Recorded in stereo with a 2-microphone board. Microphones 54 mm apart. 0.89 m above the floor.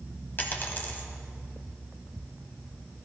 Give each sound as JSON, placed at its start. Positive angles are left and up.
{"t": 0.4, "sound": "a dropped coin", "side_deg": 40, "distance_m": 1.3}